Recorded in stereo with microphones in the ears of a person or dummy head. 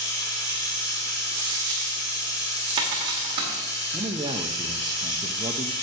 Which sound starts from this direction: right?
A dropped coin, at 1.4 s.